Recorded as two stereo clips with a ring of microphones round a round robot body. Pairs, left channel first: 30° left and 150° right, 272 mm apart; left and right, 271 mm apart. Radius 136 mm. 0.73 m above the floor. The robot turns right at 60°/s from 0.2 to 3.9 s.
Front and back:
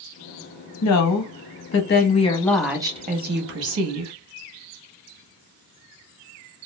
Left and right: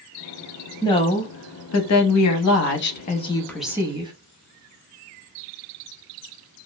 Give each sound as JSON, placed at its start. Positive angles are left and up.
{"t": 0.8, "sound": "a woman speaking", "azimuth_deg": 15, "distance_m": 0.7}